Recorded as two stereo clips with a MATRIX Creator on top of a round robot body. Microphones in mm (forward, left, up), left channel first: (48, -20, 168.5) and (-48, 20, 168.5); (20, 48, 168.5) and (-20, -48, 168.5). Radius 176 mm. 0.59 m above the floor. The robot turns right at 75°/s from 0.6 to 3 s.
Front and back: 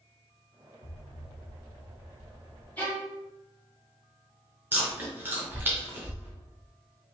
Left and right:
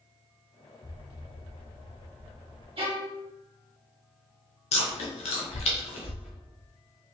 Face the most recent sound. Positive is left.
turn(degrees=85)